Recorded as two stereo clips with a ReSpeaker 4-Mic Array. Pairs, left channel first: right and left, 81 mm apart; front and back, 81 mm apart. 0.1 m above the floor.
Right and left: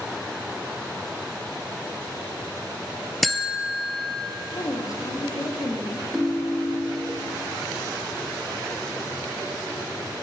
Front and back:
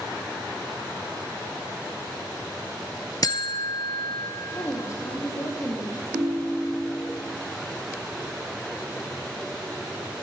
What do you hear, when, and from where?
3.2 s a buzzer: straight ahead, 0.8 m
4.5 s a woman speaking: 50° right, 3 m
6.1 s a ringtone: 165° left, 3 m